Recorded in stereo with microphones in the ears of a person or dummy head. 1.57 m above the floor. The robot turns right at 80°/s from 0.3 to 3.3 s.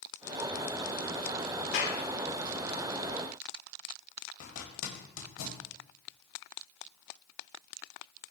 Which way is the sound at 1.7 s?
65° left (ahead or behind).